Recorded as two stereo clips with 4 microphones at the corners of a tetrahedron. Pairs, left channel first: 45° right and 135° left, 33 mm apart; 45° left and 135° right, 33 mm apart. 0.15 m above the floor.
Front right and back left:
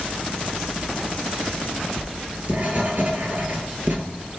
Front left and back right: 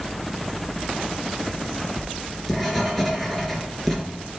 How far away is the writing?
About 2.0 m.